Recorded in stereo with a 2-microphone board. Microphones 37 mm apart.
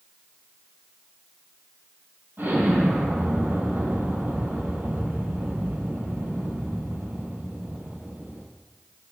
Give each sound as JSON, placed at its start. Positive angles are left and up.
{"t": 2.4, "sound": "an explosion", "side_deg": -60, "distance_m": 4.0}